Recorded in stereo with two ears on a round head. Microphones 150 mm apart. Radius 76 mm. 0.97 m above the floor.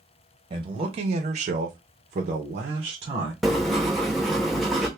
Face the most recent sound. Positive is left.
turn(degrees=0)  # may be behind; listen again after turning